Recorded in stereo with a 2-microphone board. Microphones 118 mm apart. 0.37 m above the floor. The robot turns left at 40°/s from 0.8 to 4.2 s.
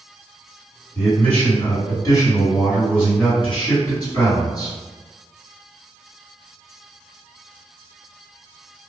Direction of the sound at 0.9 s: Straight behind.